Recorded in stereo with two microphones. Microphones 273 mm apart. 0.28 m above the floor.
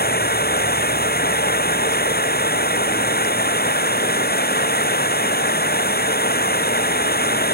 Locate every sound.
0.0 s running water: 35° left (ahead or behind)